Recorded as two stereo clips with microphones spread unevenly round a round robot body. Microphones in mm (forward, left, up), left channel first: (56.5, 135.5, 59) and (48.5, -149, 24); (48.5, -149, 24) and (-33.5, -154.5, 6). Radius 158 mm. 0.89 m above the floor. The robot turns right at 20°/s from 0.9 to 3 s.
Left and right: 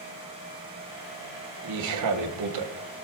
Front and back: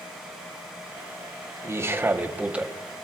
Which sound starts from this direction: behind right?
A man speaking, at 1.6 s.